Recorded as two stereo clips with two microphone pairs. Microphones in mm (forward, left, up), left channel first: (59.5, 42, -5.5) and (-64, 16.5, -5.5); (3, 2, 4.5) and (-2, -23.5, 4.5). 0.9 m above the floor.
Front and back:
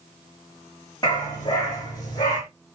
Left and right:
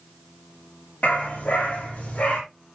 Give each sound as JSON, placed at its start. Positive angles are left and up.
{"t": 1.0, "sound": "a dog barking", "azimuth_deg": 65, "distance_m": 7.0}